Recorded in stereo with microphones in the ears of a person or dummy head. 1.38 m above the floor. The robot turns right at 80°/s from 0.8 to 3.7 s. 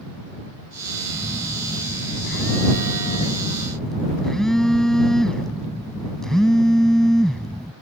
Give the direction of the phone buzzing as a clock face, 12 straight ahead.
1 o'clock.